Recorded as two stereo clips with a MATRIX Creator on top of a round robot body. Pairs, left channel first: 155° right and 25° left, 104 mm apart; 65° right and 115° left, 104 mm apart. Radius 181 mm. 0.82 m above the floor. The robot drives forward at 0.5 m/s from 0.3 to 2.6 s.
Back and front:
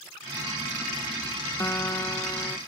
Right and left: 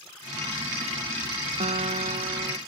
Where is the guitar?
130° left; by 2.6 s 140° left.